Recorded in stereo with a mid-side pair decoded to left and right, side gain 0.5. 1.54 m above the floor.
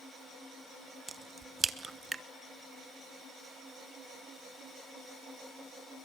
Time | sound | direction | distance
1.1 | a crack | 25° right | 1.2 m